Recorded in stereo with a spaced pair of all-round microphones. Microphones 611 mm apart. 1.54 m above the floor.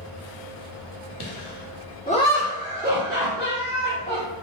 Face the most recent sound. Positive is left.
turn(degrees=-35)  # may be behind; listen again after turning